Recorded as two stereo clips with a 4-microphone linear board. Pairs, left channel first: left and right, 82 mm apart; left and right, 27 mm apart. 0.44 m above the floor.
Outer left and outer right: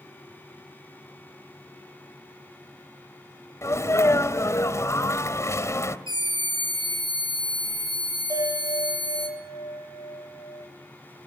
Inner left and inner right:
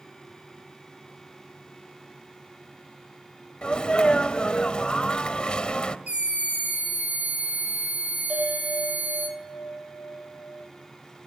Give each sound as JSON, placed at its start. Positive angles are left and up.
{"t": 3.6, "sound": "a sneeze", "side_deg": 40, "distance_m": 2.0}
{"t": 6.1, "sound": "a scream", "side_deg": -70, "distance_m": 6.0}
{"t": 8.3, "sound": "a bell", "side_deg": -45, "distance_m": 7.5}